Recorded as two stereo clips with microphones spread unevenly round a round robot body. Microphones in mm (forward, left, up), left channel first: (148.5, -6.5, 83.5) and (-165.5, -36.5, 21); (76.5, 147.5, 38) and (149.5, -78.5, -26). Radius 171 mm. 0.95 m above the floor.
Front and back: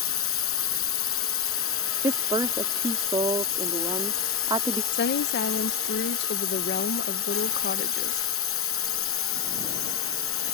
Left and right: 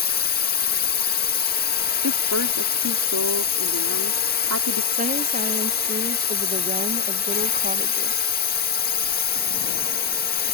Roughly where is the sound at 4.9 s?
Ahead right.